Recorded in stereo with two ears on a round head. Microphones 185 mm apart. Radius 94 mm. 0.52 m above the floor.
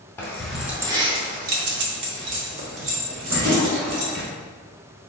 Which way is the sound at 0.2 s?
10° left (ahead or behind).